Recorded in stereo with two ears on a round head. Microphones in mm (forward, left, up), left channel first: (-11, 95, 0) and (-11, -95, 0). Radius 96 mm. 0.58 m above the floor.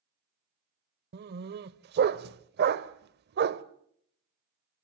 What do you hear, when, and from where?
1.1 s a dog barking: 50° right (ahead or behind), 1.0 m